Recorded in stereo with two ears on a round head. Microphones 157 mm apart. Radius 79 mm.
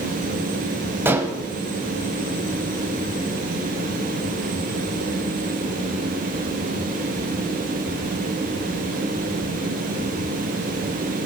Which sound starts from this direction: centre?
Dishes clattering, at 1.1 s.